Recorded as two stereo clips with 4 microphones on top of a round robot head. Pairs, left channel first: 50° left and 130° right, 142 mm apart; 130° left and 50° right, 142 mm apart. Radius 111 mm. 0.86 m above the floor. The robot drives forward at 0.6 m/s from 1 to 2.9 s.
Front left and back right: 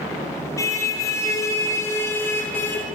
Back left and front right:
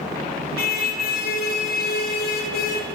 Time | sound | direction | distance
0.6 | a car horn | 120° left | 7 m